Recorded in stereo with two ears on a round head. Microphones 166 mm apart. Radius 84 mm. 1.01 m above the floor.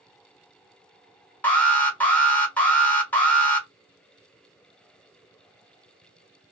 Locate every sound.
1.4 s an alarm: 10° left (ahead or behind), 0.9 m